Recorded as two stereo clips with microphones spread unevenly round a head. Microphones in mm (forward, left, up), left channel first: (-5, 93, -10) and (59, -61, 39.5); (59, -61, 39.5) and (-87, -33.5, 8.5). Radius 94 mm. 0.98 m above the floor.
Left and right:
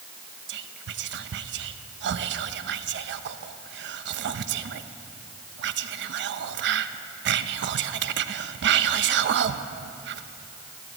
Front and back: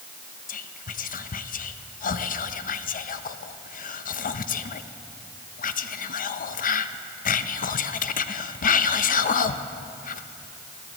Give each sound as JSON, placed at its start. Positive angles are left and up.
{"t": 0.5, "sound": "whispering", "azimuth_deg": -45, "distance_m": 0.8}